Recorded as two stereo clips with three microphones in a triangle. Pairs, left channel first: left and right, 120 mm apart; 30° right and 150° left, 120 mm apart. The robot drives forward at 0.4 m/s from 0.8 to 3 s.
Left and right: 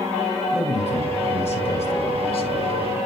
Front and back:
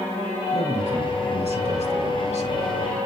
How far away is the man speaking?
About 2.5 m.